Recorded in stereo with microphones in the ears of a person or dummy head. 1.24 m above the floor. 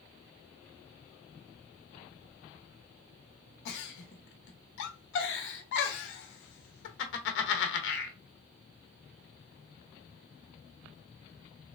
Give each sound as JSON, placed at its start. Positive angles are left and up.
{"t": 3.6, "sound": "a giggle", "side_deg": 70, "distance_m": 0.8}